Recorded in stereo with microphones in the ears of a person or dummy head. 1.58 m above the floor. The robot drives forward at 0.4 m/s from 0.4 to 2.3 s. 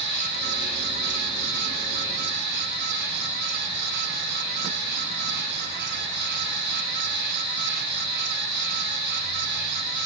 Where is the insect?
35° left (ahead or behind), 2 m; by 10.1 s 25° left (ahead or behind), 2.5 m.